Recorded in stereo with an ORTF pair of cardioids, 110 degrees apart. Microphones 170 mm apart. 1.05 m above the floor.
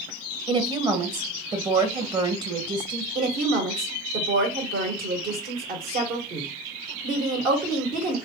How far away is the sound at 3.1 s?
About 1.6 m.